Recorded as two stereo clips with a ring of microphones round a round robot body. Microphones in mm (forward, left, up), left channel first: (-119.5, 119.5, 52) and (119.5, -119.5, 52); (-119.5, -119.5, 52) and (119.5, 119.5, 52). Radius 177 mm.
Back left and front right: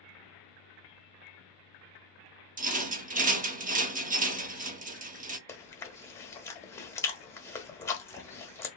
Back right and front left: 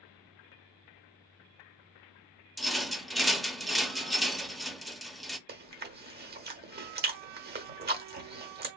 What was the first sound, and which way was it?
A rattle, 45° right.